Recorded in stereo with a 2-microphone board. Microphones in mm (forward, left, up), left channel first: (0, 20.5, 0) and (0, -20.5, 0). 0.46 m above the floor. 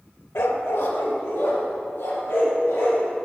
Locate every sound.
0.3 s a dog barking: 70° left (ahead or behind), 0.6 m